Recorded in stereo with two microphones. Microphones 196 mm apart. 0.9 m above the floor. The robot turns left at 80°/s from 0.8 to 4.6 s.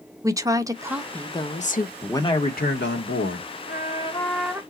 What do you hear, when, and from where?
0.2 s a woman speaking: 160° right, 0.7 m; by 1.9 s 110° left, 0.7 m
2.0 s a man speaking: 175° left, 1.4 m; by 3.5 s 55° left, 1.4 m
3.7 s a trumpet: 60° left, 0.8 m; by 4.6 s 15° right, 0.8 m